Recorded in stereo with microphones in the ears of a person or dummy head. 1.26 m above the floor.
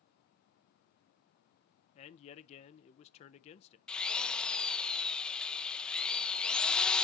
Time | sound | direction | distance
1.9 | a man speaking | 35° left (ahead or behind) | 0.5 m
3.9 | a drill | 10° left (ahead or behind) | 0.5 m